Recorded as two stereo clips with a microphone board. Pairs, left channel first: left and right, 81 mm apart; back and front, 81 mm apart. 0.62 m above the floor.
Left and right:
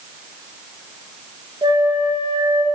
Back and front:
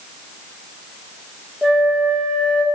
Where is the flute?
95° right, 4 m.